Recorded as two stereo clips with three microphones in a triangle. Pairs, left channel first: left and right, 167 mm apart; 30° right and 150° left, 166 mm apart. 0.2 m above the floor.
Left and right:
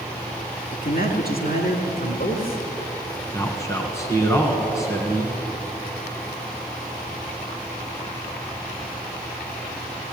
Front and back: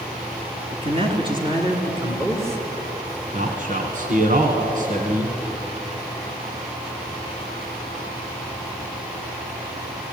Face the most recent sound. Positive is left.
turn(degrees=155)